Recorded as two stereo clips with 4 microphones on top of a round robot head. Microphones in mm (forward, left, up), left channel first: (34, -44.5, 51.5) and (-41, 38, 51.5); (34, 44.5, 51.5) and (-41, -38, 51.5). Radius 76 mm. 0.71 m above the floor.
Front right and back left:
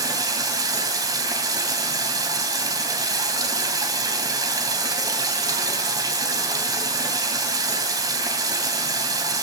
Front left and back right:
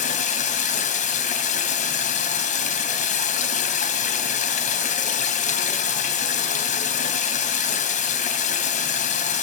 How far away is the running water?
About 2.5 m.